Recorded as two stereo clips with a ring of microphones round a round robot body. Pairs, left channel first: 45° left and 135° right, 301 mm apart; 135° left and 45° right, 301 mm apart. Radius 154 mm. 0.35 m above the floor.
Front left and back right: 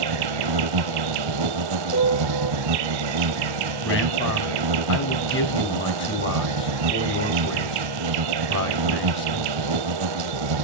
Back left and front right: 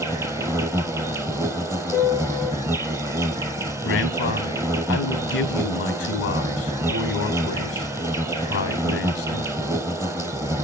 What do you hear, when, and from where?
0.0 s an insect: 125° right, 1.1 m
1.9 s a piano: 65° left, 8 m
3.8 s a man speaking: 95° left, 3.5 m